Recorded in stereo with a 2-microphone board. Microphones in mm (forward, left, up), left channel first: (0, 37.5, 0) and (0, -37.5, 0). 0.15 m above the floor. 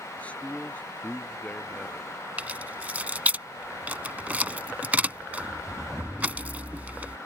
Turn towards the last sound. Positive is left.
turn(degrees=-20)  # may be behind; listen again after turning